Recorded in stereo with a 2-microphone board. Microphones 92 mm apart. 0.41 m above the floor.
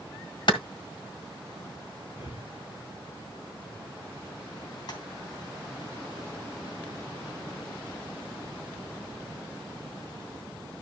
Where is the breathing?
65° left (ahead or behind), 5 m.